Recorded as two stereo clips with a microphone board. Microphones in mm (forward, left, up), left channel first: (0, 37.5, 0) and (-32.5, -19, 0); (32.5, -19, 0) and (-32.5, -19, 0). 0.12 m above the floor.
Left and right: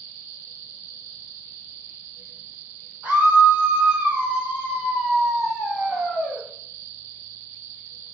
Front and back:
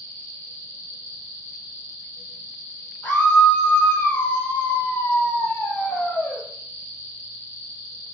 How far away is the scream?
About 4 m.